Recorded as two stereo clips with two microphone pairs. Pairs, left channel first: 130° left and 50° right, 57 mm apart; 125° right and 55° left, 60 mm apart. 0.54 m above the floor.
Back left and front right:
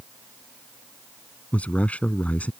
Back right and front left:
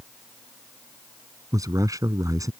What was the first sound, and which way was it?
A man speaking, 65° left.